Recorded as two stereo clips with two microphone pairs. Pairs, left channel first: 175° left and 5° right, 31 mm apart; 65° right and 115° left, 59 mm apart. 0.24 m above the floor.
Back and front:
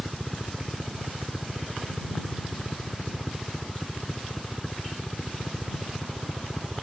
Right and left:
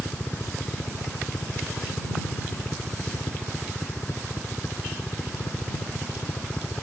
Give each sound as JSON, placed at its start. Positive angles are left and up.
{"t": 0.0, "sound": "a helicopter", "azimuth_deg": -110}